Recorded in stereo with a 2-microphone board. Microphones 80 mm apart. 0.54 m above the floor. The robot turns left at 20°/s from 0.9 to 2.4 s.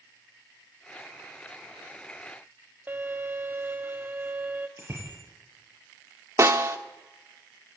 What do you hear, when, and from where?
2.9 s a violin: 25° right (ahead or behind), 0.9 m
4.8 s a bicycle bell: 30° right (ahead or behind), 9.5 m
6.4 s a snare drum: 40° right (ahead or behind), 1.3 m